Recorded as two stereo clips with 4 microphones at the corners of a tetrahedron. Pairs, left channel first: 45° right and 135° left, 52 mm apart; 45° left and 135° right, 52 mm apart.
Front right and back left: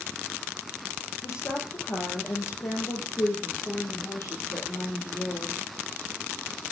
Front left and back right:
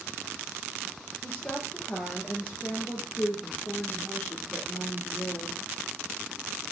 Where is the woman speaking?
10° right, 4.5 m.